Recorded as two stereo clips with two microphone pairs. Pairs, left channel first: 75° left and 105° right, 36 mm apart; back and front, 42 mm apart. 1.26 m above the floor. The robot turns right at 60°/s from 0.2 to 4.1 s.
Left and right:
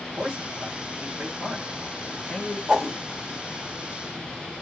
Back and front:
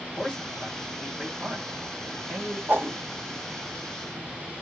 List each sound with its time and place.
0.2 s a man speaking: 130° right, 1.2 m; by 2.6 s 15° left, 1.2 m
2.7 s a whoosh: 35° right, 1.2 m; by 3.0 s 15° right, 1.2 m